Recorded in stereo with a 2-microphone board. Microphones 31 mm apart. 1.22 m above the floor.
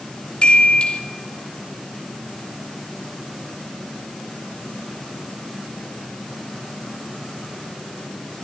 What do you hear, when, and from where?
0.4 s a chime: 40° left (ahead or behind), 2.5 m